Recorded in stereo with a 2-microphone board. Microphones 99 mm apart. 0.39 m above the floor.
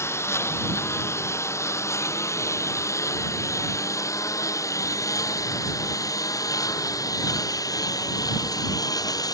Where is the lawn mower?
25° left (ahead or behind); by 9.3 s 35° left (ahead or behind).